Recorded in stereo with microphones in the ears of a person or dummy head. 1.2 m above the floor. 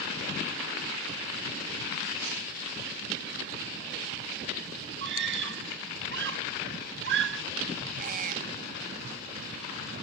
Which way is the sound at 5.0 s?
65° right (ahead or behind).